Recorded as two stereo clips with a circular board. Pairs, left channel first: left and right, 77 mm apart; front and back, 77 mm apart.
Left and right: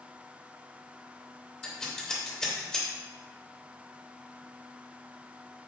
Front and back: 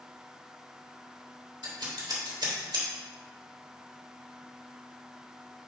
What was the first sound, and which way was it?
Scissors, 170° left.